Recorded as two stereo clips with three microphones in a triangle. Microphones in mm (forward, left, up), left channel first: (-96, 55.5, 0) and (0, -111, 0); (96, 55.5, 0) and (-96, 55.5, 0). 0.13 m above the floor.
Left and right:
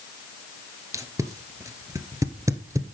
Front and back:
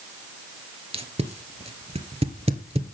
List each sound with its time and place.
0.9 s tape being pulled: 130° right, 1.3 m